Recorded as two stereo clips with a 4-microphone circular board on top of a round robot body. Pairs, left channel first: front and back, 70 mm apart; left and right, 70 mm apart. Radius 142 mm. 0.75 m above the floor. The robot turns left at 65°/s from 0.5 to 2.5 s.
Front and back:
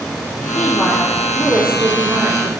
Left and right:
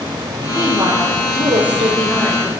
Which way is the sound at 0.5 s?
30° right.